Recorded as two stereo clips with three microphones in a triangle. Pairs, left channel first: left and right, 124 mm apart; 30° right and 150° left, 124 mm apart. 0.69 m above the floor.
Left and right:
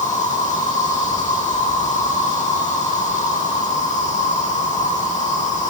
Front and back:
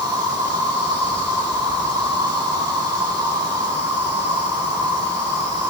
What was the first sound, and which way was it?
An insect, 95° left.